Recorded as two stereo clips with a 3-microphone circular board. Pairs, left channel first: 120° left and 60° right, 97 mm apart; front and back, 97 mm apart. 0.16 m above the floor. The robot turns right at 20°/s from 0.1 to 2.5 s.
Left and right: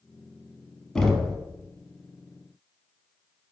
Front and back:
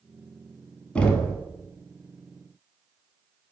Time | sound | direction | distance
0.9 | knocking | 45° left | 0.7 m